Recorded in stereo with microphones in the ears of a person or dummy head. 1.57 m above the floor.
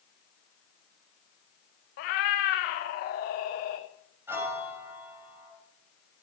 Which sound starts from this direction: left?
A cat meowing, at 2.0 s.